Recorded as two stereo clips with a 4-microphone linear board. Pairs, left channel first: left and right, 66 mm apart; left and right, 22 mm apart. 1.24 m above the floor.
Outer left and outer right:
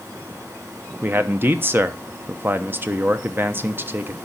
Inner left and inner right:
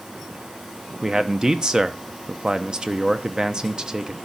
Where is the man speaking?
35° right (ahead or behind), 0.8 m.